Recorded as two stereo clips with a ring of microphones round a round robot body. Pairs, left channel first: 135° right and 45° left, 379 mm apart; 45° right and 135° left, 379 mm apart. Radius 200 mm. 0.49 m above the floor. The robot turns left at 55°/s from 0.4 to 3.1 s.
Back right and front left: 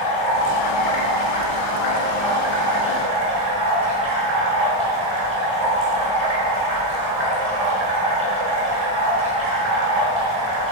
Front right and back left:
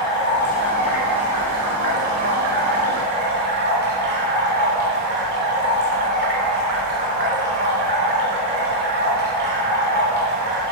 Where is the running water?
105° right, 4.5 m; by 10.7 s 105° left, 4.5 m.